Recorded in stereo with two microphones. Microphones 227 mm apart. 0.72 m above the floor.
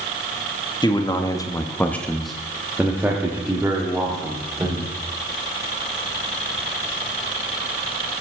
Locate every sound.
0.8 s a man speaking: 20° left (ahead or behind), 1.1 m; by 4.9 s 15° right (ahead or behind), 2.5 m